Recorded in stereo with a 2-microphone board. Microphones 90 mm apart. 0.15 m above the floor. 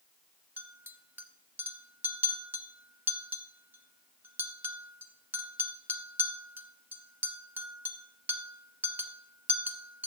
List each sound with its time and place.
0.6 s a clink: 20° right (ahead or behind), 0.7 m